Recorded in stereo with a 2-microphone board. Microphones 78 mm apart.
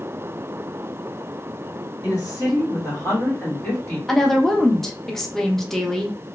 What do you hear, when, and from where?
2.0 s a woman speaking: 55° left (ahead or behind), 1.8 m; by 4.0 s 25° left (ahead or behind), 1.3 m
4.1 s a woman speaking: 5° left (ahead or behind), 0.5 m